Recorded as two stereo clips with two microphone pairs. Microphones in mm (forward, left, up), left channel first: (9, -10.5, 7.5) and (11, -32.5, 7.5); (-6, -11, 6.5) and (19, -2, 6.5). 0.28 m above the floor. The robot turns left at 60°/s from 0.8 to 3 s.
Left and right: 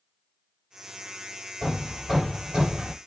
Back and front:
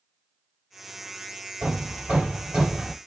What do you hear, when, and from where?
1.6 s hammering: 25° left, 5.5 m; by 3.0 s 55° right, 5.5 m